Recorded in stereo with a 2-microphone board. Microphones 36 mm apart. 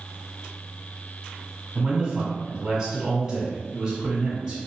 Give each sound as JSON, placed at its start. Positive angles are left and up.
{"t": 1.8, "sound": "a man speaking", "side_deg": -10, "distance_m": 1.1}